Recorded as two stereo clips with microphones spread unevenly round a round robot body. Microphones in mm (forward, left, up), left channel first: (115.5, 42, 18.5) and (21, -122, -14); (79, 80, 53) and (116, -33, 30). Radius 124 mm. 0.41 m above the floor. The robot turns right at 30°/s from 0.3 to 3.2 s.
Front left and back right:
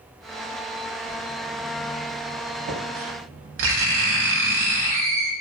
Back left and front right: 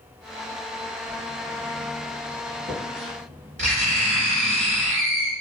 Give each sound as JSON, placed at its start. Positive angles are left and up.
{"t": 1.1, "sound": "writing", "azimuth_deg": -175, "distance_m": 0.8}